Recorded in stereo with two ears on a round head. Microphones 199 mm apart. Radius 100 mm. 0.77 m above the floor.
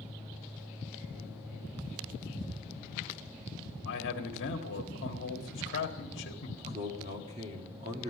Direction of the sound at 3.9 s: 55° left (ahead or behind).